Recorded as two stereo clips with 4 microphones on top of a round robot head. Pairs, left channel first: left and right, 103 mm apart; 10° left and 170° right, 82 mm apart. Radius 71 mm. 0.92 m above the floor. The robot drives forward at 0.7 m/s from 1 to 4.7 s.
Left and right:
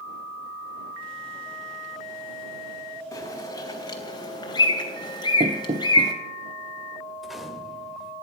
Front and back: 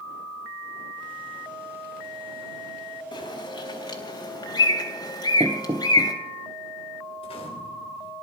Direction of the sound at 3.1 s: 30° left.